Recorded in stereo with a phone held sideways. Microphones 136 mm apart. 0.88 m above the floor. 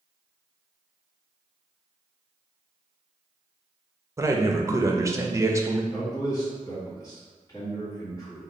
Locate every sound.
4.2 s a man speaking: 20° right (ahead or behind), 0.5 m
5.9 s a man speaking: 25° left (ahead or behind), 1.9 m